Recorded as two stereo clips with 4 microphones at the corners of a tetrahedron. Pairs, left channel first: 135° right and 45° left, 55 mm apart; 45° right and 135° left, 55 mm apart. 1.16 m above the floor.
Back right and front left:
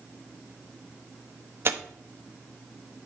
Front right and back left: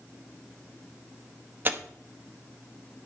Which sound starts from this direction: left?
Tearing paper, at 1.6 s.